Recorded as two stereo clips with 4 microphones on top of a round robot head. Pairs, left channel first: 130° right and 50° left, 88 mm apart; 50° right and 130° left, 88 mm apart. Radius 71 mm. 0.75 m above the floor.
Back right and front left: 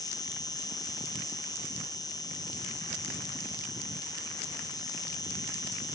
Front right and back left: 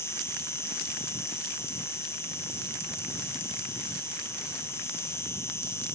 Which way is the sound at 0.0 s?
105° right.